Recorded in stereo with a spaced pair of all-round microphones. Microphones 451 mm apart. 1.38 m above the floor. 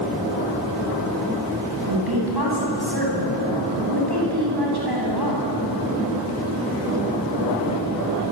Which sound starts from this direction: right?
A woman speaking, at 1.7 s.